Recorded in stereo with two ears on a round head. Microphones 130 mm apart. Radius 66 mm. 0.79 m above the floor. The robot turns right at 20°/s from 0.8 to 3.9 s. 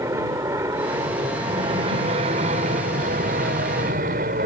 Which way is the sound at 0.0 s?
20° right (ahead or behind).